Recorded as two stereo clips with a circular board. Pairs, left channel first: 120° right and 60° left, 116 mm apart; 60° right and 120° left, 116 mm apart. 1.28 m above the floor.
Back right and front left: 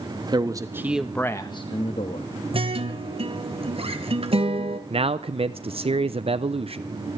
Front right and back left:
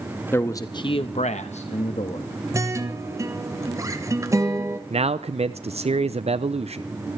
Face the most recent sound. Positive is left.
turn(degrees=95)